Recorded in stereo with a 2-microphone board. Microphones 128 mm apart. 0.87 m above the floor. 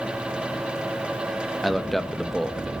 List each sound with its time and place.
1.6 s a man speaking: centre (ahead or behind), 0.9 m